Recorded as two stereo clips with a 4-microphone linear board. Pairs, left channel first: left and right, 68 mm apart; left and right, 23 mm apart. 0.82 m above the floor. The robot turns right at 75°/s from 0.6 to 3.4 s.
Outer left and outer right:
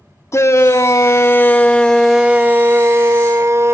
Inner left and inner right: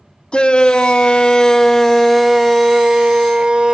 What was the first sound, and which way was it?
A shout, 75° left.